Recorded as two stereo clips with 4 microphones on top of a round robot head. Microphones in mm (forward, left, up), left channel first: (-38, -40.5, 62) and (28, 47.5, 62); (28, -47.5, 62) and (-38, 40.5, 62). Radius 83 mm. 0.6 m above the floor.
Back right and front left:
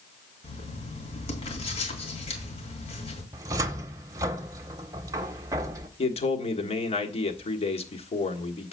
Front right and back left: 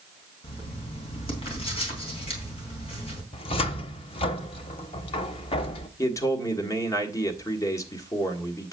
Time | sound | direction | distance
0.4 | writing | 90° right | 3.5 m
3.3 | a cupboard door | 10° right | 0.7 m
6.0 | a man speaking | 110° right | 1.6 m